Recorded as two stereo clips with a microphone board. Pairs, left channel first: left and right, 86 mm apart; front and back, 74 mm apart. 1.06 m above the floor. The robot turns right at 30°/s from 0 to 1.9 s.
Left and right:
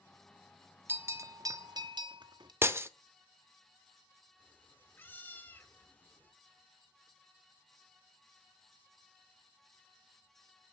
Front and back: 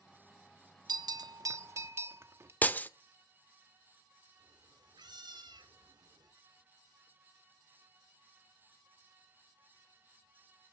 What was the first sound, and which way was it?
A bell, 155° right.